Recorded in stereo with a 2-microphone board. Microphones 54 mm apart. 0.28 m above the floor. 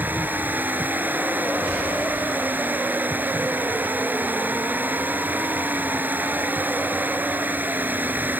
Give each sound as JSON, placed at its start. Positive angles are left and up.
{"t": 0.0, "sound": "running water", "side_deg": -35}